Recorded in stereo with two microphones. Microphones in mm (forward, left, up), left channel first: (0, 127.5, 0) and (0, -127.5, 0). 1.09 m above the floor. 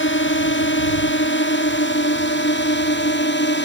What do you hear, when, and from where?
0.0 s a drone: 50° left (ahead or behind); by 3.7 s 45° left (ahead or behind)